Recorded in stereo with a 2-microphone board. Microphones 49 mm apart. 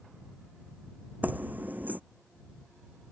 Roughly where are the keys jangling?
Right.